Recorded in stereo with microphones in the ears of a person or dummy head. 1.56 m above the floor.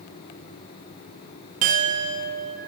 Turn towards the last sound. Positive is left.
turn(degrees=-30)  # may be behind; listen again after turning